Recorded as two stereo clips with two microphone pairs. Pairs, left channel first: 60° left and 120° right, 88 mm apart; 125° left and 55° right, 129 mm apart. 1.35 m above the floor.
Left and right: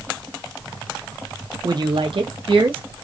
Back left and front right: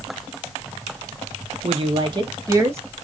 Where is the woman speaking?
85° right, 0.7 m; by 2.8 s 125° right, 1.2 m.